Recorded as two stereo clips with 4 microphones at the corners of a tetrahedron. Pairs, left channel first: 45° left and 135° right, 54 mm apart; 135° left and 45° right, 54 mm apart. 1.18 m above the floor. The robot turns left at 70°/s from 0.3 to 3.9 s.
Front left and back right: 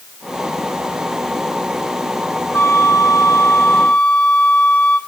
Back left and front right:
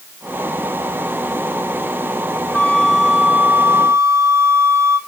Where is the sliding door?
I don't hear a sliding door.